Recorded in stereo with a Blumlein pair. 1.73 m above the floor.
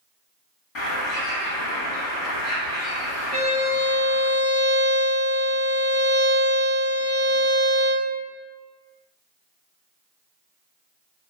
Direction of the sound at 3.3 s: 65° left.